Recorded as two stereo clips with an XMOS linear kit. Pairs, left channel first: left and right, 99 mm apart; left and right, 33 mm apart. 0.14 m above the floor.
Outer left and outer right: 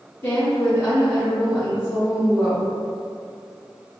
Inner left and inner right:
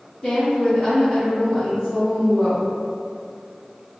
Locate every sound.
0.2 s a woman speaking: 25° left (ahead or behind), 2.0 m